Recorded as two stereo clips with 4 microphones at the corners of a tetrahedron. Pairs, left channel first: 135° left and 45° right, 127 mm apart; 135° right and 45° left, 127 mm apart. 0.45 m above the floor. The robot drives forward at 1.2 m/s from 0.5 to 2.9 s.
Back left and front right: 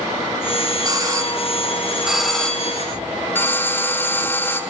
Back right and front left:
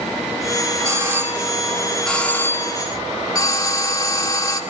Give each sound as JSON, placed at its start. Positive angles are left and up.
{"t": 0.8, "sound": "a doorbell", "azimuth_deg": -10, "distance_m": 2.0}